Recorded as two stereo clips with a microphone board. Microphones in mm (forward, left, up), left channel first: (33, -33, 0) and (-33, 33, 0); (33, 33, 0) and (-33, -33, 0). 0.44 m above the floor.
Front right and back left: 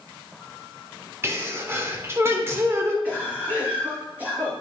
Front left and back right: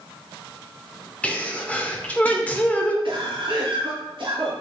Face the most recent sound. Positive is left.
turn(degrees=-155)